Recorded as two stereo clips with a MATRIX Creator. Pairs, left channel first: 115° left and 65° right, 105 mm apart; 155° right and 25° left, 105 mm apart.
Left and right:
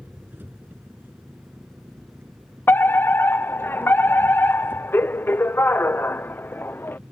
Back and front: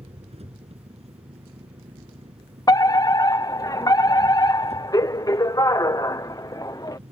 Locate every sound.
0.0 s an engine running: 5° left
2.7 s a fire alarm: 170° left